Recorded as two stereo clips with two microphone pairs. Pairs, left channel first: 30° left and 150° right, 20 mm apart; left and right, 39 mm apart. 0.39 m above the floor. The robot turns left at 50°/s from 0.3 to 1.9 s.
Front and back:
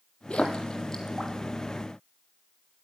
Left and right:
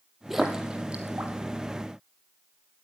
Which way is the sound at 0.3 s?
Straight ahead.